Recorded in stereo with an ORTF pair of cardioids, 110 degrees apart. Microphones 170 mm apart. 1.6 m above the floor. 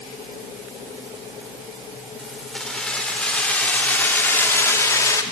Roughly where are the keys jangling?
Ahead.